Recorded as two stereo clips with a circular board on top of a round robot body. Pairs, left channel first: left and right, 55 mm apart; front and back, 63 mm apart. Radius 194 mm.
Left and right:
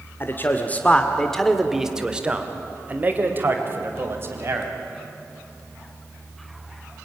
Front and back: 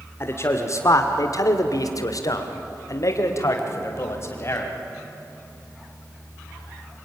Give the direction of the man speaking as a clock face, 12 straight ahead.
11 o'clock.